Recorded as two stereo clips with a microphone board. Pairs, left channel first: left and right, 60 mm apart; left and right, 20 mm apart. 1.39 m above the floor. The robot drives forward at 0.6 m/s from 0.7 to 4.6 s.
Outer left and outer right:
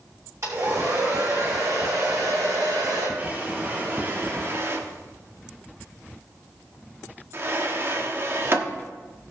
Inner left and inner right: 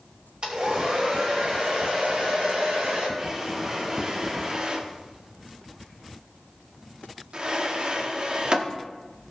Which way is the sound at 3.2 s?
30° right (ahead or behind).